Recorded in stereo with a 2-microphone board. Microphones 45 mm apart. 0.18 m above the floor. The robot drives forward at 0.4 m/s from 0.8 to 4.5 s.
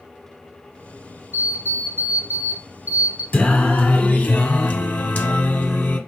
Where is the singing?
30° left (ahead or behind), 1.2 m; by 6.0 s 40° left (ahead or behind), 1.0 m.